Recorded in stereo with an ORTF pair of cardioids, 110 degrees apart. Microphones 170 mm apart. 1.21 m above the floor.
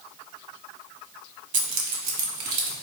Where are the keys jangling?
45° right, 0.9 m; by 2.7 s 65° right, 1.4 m.